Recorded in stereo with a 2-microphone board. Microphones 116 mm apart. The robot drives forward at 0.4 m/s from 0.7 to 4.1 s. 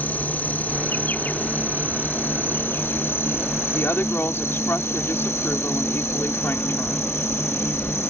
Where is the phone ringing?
No phone ringing in this recording.